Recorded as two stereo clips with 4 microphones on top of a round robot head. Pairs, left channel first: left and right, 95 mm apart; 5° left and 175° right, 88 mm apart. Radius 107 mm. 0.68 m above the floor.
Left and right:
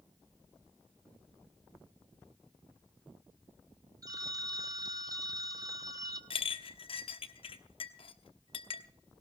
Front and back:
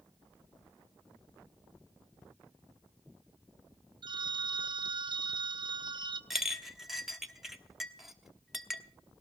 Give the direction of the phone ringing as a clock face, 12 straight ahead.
5 o'clock.